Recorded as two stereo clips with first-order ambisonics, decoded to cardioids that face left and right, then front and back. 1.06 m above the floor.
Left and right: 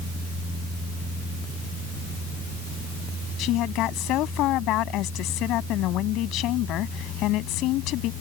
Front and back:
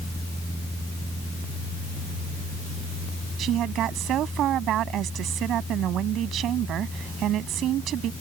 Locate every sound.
3.4 s a woman speaking: 130° left